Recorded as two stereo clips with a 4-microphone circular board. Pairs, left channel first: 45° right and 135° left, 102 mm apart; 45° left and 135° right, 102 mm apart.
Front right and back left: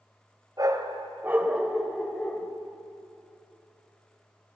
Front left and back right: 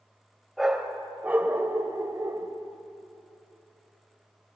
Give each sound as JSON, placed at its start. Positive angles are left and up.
{"t": 0.6, "sound": "a dog barking", "azimuth_deg": 140, "distance_m": 1.8}